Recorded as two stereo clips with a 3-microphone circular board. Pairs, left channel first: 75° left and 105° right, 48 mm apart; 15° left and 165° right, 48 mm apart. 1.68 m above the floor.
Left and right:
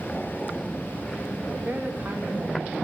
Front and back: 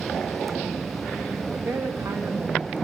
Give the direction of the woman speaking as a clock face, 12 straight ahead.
5 o'clock.